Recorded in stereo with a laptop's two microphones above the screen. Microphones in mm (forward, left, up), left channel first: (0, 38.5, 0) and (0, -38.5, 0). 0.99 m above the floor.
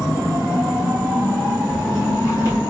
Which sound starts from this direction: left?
Footsteps, at 1.7 s.